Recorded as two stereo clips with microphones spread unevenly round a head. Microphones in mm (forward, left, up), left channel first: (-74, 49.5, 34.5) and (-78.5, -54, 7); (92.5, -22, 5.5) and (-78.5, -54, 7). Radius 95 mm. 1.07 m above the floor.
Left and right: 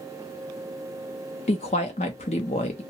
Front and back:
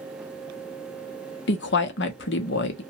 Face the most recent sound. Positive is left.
turn(degrees=40)